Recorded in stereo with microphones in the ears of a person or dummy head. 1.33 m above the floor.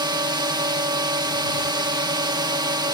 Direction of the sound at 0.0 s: 25° right (ahead or behind).